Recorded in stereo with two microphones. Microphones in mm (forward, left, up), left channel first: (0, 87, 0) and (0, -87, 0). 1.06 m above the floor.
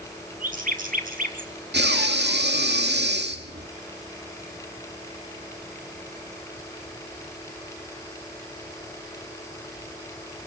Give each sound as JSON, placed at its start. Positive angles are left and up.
{"t": 0.4, "sound": "a bird", "side_deg": -50, "distance_m": 4.5}
{"t": 1.7, "sound": "breathing", "side_deg": -75, "distance_m": 2.5}